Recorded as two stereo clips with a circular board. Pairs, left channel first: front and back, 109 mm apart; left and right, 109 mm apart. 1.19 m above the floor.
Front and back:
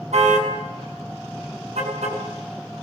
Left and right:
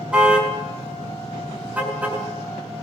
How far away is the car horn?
About 6.5 m.